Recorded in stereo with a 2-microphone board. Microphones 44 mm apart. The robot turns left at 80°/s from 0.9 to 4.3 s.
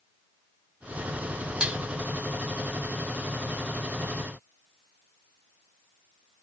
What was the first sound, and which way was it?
Dishes clattering, 20° right (ahead or behind).